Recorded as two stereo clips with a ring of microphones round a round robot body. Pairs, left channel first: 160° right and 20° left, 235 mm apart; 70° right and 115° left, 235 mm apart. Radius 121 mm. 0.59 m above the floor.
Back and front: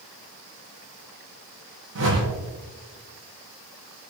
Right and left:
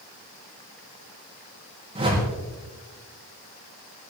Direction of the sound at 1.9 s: 45° left.